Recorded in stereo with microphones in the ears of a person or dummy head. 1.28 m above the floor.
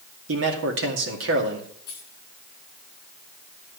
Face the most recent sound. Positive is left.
turn(degrees=60)  # may be behind; listen again after turning